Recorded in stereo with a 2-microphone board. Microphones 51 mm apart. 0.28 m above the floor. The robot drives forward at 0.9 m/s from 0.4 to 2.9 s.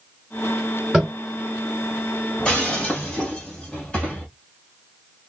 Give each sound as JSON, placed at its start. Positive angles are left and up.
{"t": 0.9, "sound": "tapping", "side_deg": -10, "distance_m": 3.0}
{"t": 2.4, "sound": "breaking glass", "side_deg": 15, "distance_m": 2.5}